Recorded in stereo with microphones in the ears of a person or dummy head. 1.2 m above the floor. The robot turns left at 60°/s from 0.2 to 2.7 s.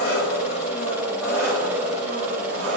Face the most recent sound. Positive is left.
turn(degrees=-70)